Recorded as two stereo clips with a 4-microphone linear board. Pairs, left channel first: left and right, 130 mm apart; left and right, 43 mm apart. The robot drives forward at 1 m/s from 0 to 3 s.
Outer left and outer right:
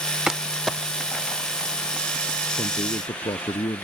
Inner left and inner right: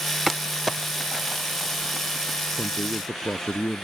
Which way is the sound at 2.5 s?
40° left (ahead or behind).